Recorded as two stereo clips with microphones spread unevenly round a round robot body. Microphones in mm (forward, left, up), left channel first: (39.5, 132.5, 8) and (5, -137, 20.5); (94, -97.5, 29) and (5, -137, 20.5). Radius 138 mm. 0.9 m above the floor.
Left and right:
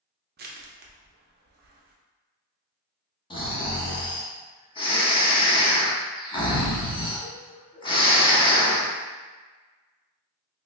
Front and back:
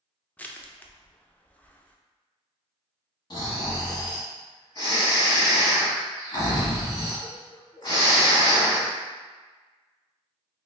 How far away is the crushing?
About 0.6 m.